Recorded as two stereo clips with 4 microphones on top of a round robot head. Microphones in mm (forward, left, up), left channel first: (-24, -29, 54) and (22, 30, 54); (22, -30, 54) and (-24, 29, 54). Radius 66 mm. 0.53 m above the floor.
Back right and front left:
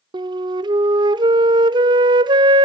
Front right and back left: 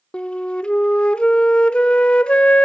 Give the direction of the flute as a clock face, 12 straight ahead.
11 o'clock.